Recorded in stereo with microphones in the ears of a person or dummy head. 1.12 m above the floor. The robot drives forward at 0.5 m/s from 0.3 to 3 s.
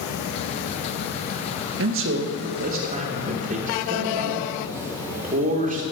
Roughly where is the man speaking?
Right.